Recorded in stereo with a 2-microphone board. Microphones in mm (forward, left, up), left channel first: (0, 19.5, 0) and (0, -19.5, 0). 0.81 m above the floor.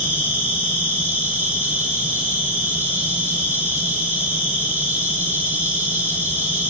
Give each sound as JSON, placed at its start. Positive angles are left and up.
{"t": 0.0, "sound": "an insect", "side_deg": -80, "distance_m": 8.0}